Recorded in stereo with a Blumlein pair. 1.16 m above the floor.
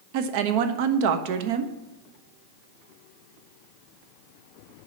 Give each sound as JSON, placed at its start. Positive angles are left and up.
{"t": 0.1, "sound": "a woman speaking", "azimuth_deg": -45, "distance_m": 0.9}